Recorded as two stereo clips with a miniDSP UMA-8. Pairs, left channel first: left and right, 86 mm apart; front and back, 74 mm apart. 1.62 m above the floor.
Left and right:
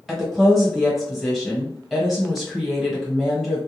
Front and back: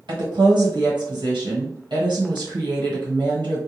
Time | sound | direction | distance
0.1 | a woman speaking | straight behind | 1.4 m